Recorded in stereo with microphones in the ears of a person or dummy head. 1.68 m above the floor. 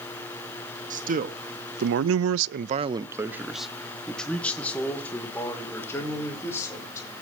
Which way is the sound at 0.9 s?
40° right (ahead or behind).